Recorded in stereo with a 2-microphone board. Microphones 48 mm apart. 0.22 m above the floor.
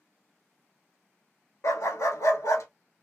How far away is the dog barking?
About 0.7 m.